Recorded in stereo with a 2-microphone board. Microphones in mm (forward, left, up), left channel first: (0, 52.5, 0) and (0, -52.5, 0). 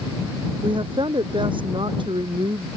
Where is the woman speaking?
50° right (ahead or behind).